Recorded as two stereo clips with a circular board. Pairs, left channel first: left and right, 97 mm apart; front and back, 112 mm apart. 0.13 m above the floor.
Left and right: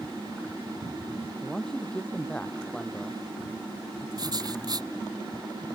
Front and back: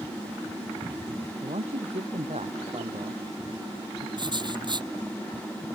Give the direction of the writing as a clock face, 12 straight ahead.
4 o'clock.